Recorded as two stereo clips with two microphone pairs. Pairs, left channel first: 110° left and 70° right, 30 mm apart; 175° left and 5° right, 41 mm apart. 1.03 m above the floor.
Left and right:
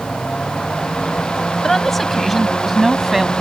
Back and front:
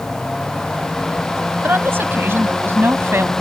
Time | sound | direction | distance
1.6 | a woman speaking | 25° left | ?